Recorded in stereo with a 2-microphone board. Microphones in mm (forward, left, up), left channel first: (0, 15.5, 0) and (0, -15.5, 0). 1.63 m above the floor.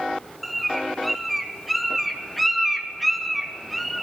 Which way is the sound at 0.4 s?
Centre (ahead or behind).